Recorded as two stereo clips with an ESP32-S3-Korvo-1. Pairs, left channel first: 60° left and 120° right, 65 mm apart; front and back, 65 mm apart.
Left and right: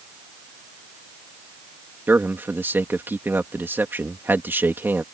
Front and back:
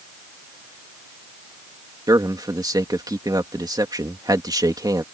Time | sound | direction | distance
2.1 | a man speaking | 175° right | ?